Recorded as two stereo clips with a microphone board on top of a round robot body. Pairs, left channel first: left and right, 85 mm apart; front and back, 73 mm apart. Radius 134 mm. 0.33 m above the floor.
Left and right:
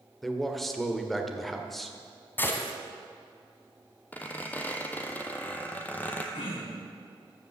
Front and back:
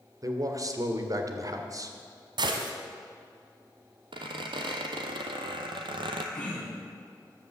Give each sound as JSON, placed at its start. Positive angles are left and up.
{"t": 0.2, "sound": "a man speaking", "azimuth_deg": 175, "distance_m": 2.0}
{"t": 2.4, "sound": "a gunshot", "azimuth_deg": 160, "distance_m": 1.5}
{"t": 4.1, "sound": "a squeak", "azimuth_deg": 165, "distance_m": 1.1}
{"t": 6.3, "sound": "throat clearing", "azimuth_deg": 75, "distance_m": 4.5}